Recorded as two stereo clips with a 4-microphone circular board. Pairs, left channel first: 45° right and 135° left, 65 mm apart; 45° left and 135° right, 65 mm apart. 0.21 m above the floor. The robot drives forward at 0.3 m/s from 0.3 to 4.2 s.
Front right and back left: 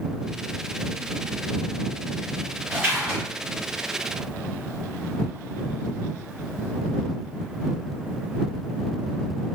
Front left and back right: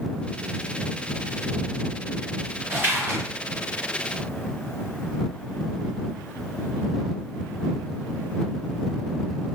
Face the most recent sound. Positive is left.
turn(degrees=-170)